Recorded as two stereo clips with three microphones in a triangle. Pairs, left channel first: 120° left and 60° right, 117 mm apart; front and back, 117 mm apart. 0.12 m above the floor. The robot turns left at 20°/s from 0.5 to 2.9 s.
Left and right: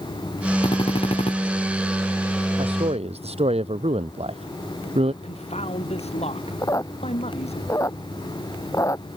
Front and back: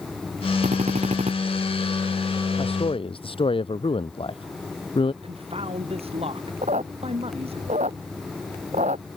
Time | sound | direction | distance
0.6 | a drill | 170° left | ?
2.6 | a man speaking | 30° right | ?
5.2 | a man speaking | 145° left | ?
6.6 | a squeak | straight behind | ?